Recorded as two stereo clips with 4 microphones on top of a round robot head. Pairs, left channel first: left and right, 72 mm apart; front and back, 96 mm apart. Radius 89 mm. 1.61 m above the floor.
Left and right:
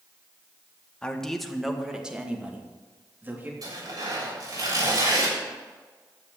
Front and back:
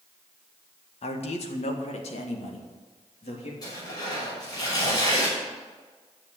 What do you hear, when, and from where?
1.0 s a man speaking: 10° left, 1.8 m; by 3.5 s 25° right, 3.5 m
3.6 s tearing paper: 55° right, 7.5 m